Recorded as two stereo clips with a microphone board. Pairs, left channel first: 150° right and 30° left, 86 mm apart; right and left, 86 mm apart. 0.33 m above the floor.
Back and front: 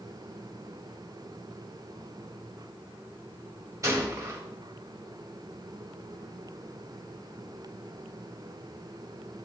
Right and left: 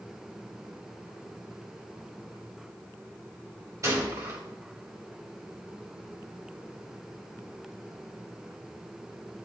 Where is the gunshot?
55° left, 1.5 m.